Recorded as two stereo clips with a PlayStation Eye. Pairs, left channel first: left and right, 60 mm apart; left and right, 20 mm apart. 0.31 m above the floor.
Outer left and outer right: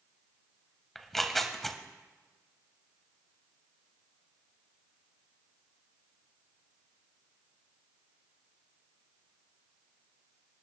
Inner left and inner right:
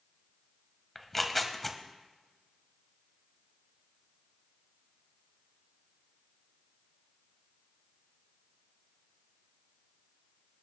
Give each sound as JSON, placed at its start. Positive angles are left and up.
{"t": 0.9, "sound": "tearing paper", "side_deg": 5, "distance_m": 0.9}